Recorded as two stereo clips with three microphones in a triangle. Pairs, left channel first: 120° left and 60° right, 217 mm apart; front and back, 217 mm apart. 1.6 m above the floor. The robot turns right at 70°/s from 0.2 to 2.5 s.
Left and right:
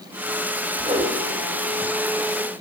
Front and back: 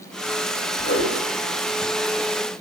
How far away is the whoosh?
About 4 m.